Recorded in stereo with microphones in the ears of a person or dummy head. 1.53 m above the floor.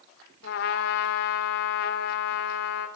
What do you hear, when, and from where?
0.4 s a trumpet: 65° left (ahead or behind), 3 m